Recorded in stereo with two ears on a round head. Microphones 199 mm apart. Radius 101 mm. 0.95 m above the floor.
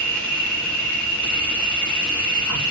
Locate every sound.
0.0 s an insect: 5° left (ahead or behind), 2.5 m